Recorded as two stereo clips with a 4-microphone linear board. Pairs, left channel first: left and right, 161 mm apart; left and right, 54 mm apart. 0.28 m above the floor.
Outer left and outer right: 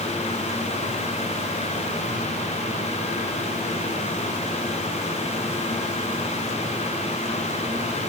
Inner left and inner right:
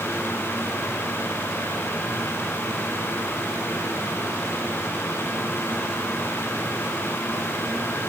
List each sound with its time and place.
Only background noise.